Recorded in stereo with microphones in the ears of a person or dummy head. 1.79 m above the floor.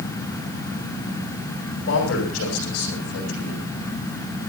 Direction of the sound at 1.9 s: 85° left.